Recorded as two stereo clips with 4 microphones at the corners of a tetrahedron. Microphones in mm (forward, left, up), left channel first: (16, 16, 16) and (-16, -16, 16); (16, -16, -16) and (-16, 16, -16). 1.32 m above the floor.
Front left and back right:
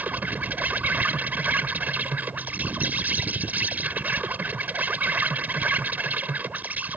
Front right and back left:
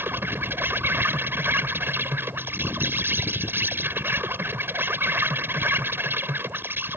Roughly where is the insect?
Behind.